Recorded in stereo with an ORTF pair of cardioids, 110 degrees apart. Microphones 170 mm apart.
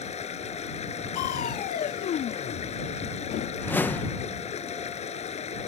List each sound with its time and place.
0.0 s running water: 40° left
1.1 s crushing: 55° left
3.6 s a whoosh: 10° left